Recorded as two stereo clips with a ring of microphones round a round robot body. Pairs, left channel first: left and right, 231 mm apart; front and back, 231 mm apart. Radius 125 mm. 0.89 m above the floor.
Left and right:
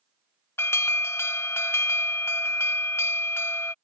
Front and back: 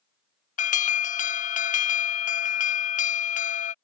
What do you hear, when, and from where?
0.6 s an alarm: 20° left